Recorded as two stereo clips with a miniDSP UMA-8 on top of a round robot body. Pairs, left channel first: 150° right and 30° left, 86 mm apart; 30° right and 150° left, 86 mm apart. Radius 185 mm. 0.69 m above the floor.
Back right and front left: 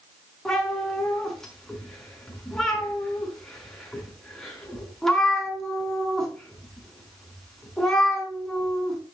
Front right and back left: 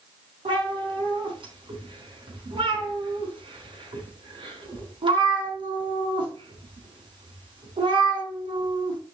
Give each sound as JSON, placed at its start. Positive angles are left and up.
{"t": 0.5, "sound": "a cat meowing", "azimuth_deg": 125, "distance_m": 4.5}